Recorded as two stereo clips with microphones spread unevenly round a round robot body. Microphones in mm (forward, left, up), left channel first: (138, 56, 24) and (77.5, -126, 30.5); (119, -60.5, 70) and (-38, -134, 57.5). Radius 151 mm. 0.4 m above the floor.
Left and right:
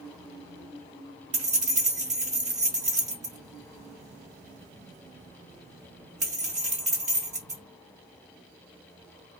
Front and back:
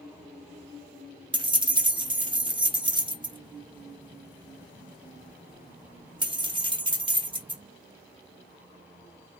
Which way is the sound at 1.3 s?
120° right.